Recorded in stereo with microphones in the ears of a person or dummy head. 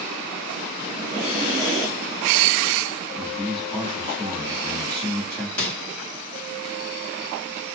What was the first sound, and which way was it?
Breathing, 15° right (ahead or behind).